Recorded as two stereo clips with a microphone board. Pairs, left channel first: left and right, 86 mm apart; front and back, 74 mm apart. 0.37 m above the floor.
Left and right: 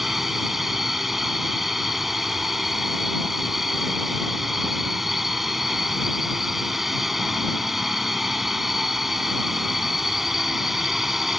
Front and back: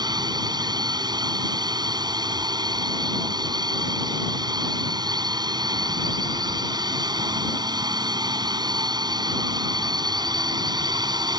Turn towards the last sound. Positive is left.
turn(degrees=-175)